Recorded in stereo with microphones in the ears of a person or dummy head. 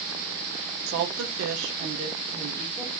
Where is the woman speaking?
75° right (ahead or behind), 0.8 m; by 2.9 s 5° right (ahead or behind), 1.0 m.